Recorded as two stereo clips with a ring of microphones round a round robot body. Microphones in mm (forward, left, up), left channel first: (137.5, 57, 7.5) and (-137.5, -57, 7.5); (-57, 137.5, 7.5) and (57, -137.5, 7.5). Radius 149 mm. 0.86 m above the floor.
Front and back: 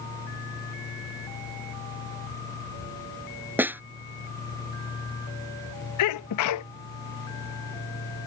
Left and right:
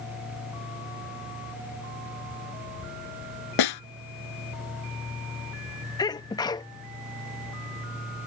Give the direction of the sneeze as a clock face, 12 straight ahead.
11 o'clock.